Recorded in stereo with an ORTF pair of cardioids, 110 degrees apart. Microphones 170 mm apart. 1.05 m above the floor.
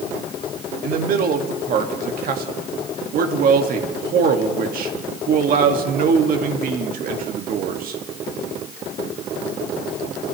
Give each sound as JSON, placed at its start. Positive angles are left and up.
{"t": 0.8, "sound": "a man speaking", "azimuth_deg": -60, "distance_m": 1.9}